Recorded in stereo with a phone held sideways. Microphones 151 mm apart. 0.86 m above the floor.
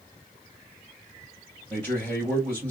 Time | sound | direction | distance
1.7 | a man speaking | 15° left (ahead or behind) | 3 m